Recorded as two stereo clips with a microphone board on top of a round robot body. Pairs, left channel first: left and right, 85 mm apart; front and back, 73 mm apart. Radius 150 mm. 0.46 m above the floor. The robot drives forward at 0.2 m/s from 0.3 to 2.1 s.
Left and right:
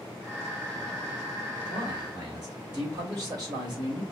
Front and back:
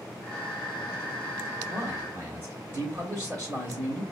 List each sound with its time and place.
1.7 s a man speaking: 125° right, 2.5 m